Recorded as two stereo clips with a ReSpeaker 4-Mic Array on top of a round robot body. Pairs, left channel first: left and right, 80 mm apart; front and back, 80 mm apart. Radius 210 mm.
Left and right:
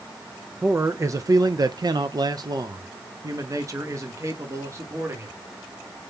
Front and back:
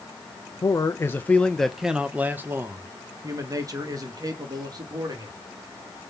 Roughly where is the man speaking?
Ahead right.